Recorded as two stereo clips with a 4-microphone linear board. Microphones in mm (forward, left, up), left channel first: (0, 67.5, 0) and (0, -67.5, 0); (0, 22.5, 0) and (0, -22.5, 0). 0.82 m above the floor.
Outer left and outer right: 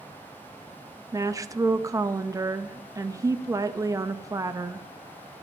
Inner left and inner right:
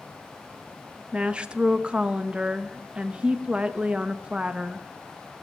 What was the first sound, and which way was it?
A woman speaking, 25° right (ahead or behind).